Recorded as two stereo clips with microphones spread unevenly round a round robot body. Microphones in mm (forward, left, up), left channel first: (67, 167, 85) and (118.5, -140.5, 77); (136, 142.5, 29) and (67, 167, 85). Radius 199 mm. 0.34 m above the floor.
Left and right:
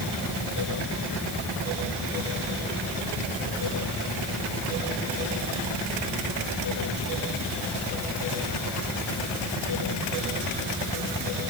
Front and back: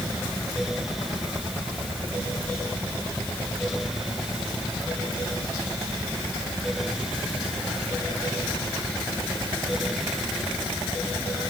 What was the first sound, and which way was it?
Only background noise.